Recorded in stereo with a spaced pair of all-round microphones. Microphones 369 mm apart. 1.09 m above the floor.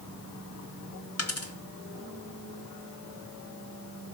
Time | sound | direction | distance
1.2 | a dropped coin | 40° left (ahead or behind) | 0.9 m